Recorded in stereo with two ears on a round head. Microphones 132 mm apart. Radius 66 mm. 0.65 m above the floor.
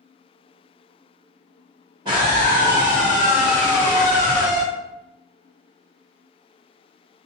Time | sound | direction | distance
2.0 | a scream | 30° right (ahead or behind) | 1.5 m